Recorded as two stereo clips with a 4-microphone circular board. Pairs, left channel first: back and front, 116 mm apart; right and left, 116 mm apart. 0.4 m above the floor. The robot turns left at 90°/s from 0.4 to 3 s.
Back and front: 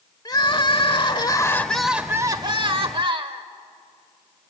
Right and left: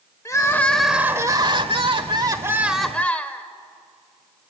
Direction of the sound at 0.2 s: 140° right.